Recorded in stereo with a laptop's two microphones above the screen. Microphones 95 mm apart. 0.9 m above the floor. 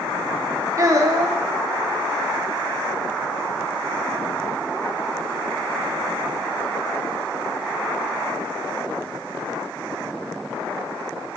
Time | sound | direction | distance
0.8 | a child speaking | 35° right (ahead or behind) | 0.9 m